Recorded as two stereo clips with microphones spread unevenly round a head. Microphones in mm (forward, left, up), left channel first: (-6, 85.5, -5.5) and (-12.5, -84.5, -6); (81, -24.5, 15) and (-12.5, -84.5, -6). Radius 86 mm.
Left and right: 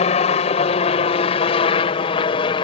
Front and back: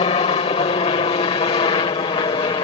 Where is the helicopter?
50° left; by 2.6 s 45° left.